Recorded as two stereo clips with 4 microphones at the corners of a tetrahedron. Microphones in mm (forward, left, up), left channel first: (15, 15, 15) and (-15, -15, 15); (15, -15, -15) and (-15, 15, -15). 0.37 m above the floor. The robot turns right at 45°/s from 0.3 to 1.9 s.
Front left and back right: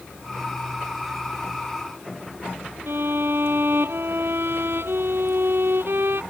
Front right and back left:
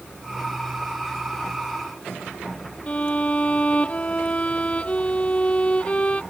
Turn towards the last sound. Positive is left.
turn(degrees=-105)